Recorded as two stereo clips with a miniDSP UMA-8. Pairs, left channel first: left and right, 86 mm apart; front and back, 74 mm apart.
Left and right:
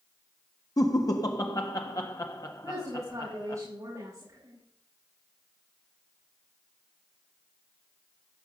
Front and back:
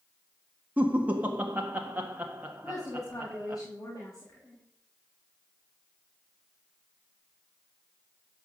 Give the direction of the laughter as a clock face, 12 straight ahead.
8 o'clock.